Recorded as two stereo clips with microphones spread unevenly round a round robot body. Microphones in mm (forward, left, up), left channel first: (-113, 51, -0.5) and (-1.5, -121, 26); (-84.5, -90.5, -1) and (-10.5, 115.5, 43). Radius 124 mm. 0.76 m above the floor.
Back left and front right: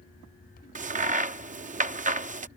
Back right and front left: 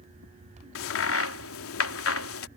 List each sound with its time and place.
0.8 s a crack: 115° right